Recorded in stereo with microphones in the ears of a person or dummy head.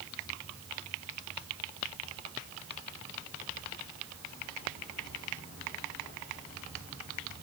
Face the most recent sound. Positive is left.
No sound to turn to.